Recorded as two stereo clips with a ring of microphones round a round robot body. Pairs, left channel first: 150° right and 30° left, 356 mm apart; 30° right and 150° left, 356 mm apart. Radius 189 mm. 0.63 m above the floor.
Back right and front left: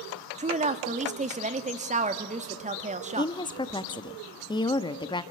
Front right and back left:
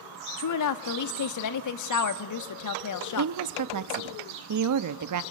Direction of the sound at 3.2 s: 135° left.